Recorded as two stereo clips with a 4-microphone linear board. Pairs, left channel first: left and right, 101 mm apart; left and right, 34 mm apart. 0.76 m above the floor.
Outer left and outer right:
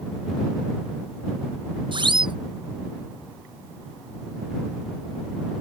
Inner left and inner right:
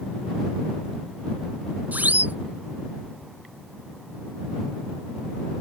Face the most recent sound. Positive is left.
turn(degrees=-50)  # may be behind; listen again after turning